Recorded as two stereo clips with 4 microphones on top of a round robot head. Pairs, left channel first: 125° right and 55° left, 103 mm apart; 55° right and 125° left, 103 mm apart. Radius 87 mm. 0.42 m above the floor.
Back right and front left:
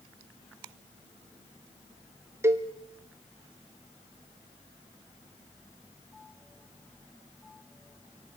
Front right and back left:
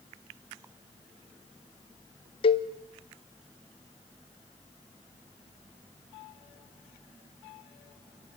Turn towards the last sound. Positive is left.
turn(degrees=-15)